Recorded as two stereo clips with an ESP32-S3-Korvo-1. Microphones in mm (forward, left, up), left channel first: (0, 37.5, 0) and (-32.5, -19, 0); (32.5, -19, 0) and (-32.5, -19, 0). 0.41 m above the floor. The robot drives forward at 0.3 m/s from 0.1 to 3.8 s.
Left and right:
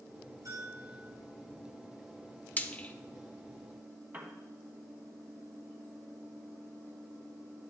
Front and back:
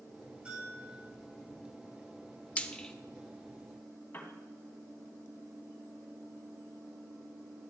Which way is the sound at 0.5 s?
110° right.